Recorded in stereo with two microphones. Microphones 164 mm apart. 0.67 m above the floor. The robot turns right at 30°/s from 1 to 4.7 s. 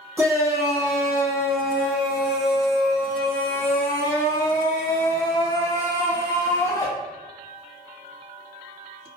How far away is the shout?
About 0.6 m.